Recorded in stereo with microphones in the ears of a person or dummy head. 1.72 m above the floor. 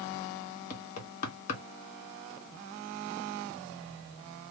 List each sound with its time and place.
0.7 s knocking: 50° left (ahead or behind), 1.2 m